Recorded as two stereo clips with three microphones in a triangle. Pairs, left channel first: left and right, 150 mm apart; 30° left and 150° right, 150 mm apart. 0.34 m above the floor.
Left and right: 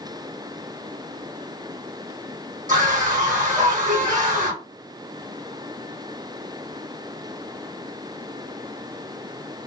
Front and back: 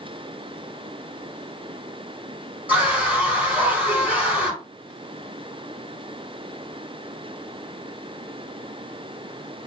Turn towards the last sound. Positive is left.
turn(degrees=-70)